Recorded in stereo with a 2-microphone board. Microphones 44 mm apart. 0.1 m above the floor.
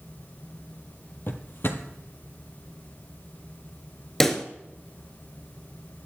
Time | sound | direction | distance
1.3 | a drawer | 55° left (ahead or behind) | 1.2 m
4.2 | a pop | 10° left (ahead or behind) | 1.1 m